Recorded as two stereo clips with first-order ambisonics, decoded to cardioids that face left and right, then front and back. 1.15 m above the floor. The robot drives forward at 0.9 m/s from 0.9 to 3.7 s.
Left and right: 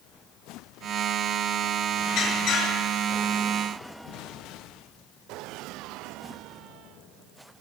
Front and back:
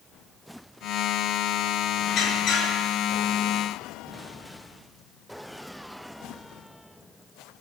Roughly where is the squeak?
Ahead left.